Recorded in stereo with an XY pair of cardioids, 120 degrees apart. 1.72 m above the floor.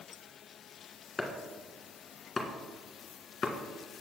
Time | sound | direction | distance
1.2 | chopping | 20° left | 1.5 m